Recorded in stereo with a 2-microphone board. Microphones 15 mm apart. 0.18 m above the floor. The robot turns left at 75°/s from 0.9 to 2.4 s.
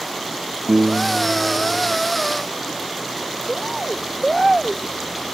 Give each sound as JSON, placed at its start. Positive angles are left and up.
{"t": 0.7, "sound": "a piano", "azimuth_deg": -90}
{"t": 3.5, "sound": "a bird", "side_deg": -10}